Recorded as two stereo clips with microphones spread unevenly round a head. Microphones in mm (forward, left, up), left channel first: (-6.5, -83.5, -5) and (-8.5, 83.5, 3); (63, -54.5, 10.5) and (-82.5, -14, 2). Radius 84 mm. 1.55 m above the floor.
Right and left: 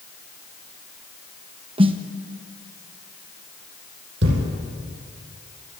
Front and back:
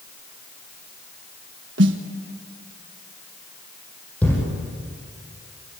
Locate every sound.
1.8 s a snare drum: 150° left, 1.5 m
4.2 s a thud: 65° left, 7 m